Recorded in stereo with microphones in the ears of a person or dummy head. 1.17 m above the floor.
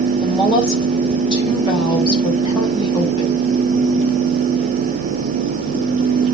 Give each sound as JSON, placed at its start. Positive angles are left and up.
{"t": 0.2, "sound": "a woman speaking", "side_deg": 35, "distance_m": 4.5}